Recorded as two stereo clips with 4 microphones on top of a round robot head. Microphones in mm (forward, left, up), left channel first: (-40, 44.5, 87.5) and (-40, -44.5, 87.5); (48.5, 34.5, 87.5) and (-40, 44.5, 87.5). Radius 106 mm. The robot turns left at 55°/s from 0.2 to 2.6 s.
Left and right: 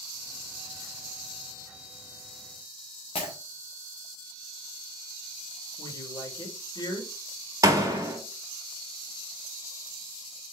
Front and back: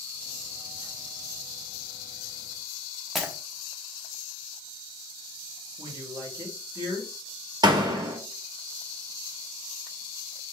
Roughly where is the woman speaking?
Behind left.